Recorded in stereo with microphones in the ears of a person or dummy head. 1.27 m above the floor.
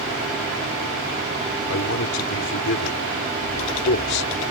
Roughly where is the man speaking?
Left.